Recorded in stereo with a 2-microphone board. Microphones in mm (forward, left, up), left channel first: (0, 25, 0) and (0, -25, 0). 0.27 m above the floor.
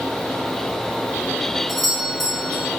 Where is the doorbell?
5° right (ahead or behind), 4 m.